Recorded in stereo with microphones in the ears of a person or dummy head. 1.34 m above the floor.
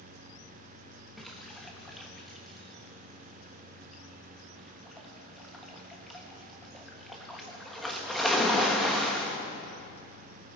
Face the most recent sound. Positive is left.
turn(degrees=0)  # may be behind; listen again after turning